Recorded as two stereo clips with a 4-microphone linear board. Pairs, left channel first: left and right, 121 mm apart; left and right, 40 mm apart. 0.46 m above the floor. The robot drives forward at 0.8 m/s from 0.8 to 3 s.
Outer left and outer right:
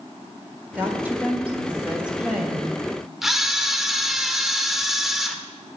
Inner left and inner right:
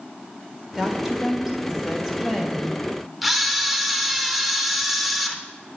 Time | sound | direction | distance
0.8 | a woman speaking | 15° right (ahead or behind) | 1.6 m
3.2 | a camera shutter | 5° right (ahead or behind) | 0.8 m